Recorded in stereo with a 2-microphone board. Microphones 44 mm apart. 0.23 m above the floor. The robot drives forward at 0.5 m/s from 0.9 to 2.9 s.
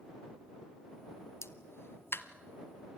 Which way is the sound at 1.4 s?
80° left.